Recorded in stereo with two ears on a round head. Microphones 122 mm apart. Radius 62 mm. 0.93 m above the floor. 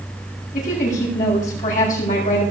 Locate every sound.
0.5 s a woman speaking: 70° left (ahead or behind), 7 m